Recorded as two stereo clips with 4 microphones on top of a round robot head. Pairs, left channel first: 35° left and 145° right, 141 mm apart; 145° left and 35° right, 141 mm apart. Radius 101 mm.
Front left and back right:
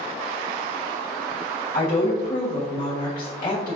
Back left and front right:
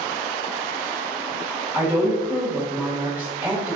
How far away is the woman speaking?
About 1.3 m.